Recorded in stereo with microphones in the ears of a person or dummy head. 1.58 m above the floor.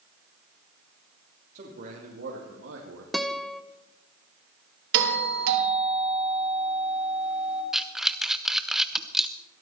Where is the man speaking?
50° right (ahead or behind), 3.5 m; by 3.0 s 85° right, 2.5 m.